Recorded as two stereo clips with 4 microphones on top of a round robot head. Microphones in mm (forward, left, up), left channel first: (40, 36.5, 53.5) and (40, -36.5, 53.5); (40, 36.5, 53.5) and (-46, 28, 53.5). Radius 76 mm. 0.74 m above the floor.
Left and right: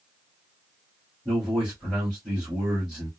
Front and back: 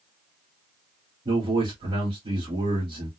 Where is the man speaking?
165° right, 2 m.